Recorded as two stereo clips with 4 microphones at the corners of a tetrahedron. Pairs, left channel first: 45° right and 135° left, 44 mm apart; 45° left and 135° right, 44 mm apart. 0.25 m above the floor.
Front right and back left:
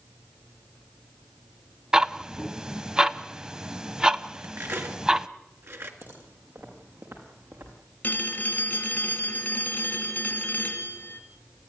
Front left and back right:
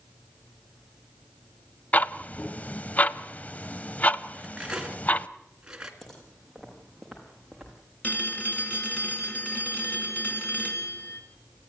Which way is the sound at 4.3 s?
155° left.